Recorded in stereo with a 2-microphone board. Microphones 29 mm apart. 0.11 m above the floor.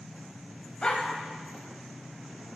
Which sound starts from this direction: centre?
A dog barking, at 0.8 s.